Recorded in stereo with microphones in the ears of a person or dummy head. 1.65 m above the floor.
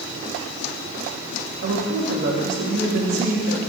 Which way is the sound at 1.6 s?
65° right (ahead or behind).